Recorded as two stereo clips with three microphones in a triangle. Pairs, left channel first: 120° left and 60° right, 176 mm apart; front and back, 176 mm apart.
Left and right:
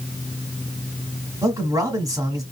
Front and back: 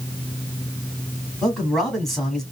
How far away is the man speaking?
About 1.5 m.